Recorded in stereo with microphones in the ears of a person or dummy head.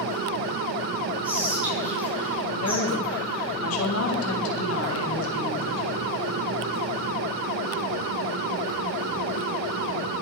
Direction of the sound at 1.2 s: 10° right (ahead or behind).